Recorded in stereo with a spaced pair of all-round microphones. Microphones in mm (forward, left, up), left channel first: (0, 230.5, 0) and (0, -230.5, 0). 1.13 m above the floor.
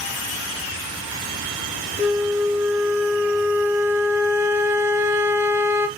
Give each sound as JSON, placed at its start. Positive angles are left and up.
{"t": 2.0, "sound": "a flute", "side_deg": -5, "distance_m": 0.8}